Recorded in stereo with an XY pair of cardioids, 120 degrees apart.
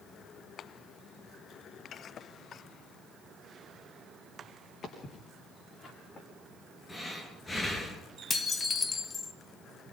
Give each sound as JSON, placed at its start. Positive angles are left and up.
{"t": 4.8, "sound": "footsteps", "azimuth_deg": 45, "distance_m": 6.0}
{"t": 6.9, "sound": "breathing", "azimuth_deg": 20, "distance_m": 4.0}
{"t": 8.3, "sound": "dishes clattering", "azimuth_deg": 25, "distance_m": 1.1}